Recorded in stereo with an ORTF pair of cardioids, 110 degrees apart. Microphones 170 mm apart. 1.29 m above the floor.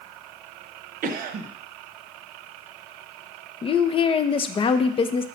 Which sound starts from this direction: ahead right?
A cough, at 1.0 s.